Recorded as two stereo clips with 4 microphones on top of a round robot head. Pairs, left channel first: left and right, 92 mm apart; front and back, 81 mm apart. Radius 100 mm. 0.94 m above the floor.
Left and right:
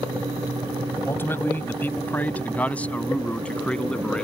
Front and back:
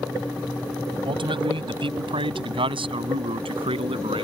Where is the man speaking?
160° left; by 4.2 s 175° left.